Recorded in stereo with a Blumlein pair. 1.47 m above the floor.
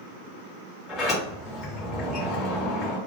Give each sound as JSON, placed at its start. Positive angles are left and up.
{"t": 0.9, "sound": "a sliding door", "azimuth_deg": 0, "distance_m": 1.4}